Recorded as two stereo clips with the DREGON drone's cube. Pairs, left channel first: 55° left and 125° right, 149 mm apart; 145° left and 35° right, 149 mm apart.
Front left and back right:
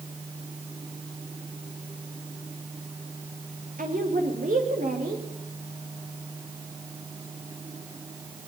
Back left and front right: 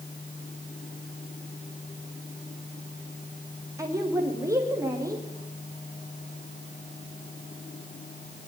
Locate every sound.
3.8 s a woman speaking: 105° right, 5.5 m